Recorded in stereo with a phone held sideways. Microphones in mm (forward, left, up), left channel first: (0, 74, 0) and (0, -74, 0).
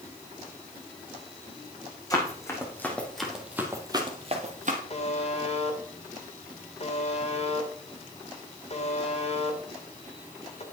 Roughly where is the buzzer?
Left.